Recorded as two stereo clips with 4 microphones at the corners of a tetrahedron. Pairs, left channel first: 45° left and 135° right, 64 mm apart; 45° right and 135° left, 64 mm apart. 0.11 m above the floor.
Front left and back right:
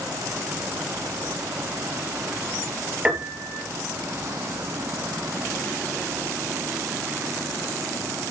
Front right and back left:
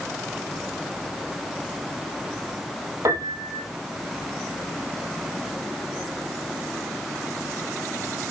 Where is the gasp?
No gasp in this recording.